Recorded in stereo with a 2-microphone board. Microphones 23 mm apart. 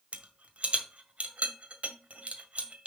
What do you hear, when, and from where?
0.1 s a rattle: 70° right (ahead or behind), 1.6 m